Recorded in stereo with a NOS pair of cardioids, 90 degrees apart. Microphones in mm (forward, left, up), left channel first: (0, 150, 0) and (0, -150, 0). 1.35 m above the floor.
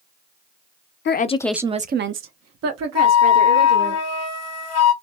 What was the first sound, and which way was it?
A woman speaking, 40° left.